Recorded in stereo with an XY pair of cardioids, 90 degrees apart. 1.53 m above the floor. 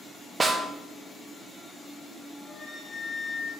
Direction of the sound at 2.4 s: 35° left.